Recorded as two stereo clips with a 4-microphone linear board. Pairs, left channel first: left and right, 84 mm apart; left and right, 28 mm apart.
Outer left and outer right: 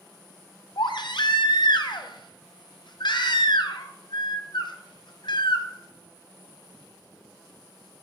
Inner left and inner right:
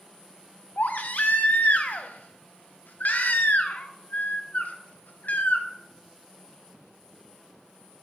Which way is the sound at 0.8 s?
70° left (ahead or behind).